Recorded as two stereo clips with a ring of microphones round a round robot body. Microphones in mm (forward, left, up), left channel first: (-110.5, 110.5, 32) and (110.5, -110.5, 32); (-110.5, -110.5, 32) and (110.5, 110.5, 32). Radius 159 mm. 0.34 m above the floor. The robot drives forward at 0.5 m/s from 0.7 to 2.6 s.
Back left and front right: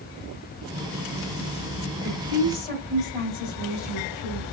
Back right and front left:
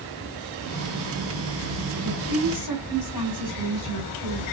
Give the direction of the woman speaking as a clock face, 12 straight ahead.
5 o'clock.